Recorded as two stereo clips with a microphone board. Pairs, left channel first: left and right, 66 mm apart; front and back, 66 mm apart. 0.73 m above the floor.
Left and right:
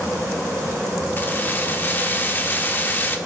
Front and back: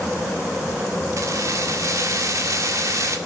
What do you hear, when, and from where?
1.2 s keys jangling: 145° left, 1.4 m